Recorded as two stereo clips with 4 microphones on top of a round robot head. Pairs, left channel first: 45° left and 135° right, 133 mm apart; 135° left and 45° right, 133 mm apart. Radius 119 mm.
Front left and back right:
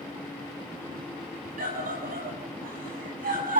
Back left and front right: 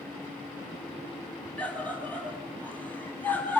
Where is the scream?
145° right, 10 m.